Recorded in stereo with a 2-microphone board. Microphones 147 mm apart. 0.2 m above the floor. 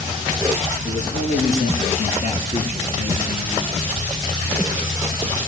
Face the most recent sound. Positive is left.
turn(degrees=40)  # may be behind; listen again after turning